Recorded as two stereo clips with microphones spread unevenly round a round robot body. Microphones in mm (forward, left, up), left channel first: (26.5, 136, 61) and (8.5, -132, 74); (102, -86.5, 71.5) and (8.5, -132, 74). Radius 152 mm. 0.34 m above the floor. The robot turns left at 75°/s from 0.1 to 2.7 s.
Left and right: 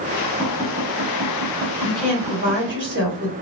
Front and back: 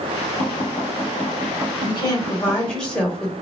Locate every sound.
0.4 s tapping: 5° left, 1.5 m; by 2.8 s 170° right, 1.5 m
1.8 s a woman speaking: 10° left, 1.7 m; by 3.3 s 55° right, 1.7 m